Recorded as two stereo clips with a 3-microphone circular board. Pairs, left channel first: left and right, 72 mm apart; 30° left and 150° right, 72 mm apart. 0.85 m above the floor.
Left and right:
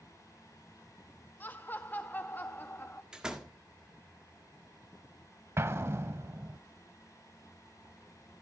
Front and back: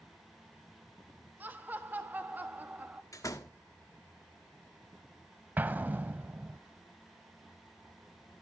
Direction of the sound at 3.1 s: 10° right.